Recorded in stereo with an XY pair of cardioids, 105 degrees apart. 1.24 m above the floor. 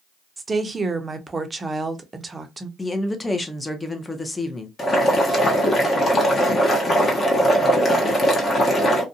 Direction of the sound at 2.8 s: 20° left.